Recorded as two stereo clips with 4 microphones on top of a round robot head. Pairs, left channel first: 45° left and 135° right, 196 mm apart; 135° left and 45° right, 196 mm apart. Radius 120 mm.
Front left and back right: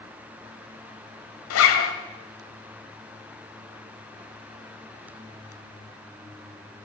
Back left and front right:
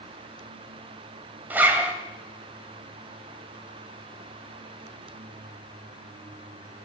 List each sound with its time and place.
1.5 s a zipper: 40° left, 2 m